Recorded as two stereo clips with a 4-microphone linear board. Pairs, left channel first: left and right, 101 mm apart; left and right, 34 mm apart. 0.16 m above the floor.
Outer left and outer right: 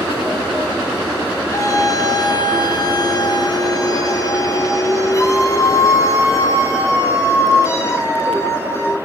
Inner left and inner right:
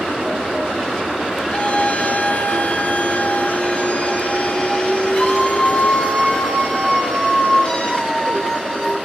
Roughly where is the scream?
Left.